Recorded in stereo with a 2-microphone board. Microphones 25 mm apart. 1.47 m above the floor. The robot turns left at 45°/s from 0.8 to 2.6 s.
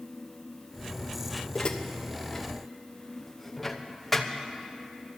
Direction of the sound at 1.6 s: 40° left (ahead or behind).